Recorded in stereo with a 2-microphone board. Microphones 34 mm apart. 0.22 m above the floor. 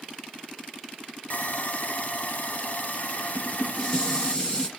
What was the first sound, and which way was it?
Sawing, 50° left (ahead or behind).